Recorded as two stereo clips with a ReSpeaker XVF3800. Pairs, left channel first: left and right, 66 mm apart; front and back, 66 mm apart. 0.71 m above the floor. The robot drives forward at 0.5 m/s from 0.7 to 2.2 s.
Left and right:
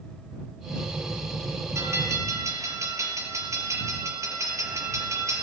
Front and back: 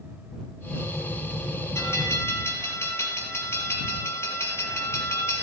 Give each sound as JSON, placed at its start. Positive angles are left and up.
{"t": 1.8, "sound": "a bell", "azimuth_deg": -50, "distance_m": 4.5}